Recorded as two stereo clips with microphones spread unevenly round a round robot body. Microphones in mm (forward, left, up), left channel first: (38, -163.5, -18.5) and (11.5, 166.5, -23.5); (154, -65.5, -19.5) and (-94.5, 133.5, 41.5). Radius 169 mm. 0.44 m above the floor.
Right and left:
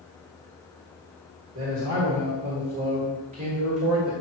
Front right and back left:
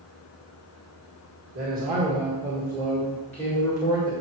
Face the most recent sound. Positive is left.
turn(degrees=25)